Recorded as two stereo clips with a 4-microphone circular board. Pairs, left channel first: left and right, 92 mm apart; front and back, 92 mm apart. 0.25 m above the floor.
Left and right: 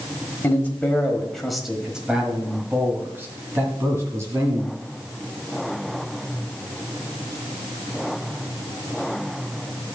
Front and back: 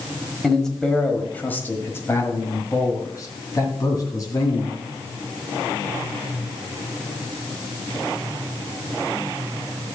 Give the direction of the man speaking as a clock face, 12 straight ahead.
9 o'clock.